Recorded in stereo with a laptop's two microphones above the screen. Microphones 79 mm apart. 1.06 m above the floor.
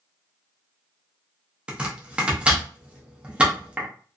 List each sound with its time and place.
1.7 s chopping: 15° right (ahead or behind), 0.6 m